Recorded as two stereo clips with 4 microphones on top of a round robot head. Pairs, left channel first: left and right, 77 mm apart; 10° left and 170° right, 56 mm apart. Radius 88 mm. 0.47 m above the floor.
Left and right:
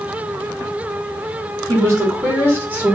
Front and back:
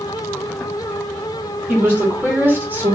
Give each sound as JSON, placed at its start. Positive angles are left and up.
{"t": 1.7, "sound": "a woman speaking", "azimuth_deg": -125, "distance_m": 1.7}